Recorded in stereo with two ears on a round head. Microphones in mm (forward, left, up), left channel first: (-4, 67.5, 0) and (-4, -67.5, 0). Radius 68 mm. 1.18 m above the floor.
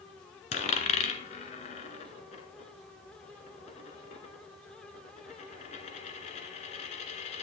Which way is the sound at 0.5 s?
45° left (ahead or behind).